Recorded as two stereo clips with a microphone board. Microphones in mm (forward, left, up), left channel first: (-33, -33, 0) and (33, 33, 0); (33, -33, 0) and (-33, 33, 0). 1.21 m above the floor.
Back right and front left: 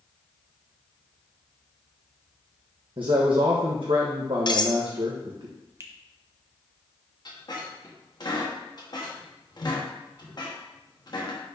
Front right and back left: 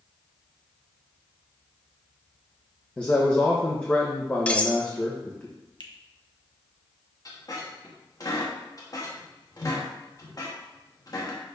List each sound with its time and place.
3.0 s a man speaking: 30° left, 0.9 m
4.5 s cutlery clinking: 120° right, 0.6 m
5.8 s a finger snap: 10° right, 1.0 m
7.2 s a squeak: 95° right, 1.3 m